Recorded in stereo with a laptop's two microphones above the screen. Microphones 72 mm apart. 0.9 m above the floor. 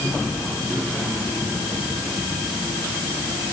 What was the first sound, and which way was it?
Only background noise.